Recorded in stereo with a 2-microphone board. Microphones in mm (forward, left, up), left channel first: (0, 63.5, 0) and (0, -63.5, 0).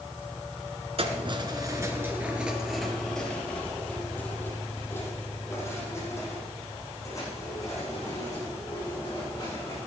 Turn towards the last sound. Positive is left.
turn(degrees=30)  # may be behind; listen again after turning